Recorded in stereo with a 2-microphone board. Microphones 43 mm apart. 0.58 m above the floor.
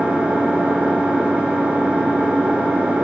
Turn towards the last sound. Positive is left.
turn(degrees=-25)  # may be behind; listen again after turning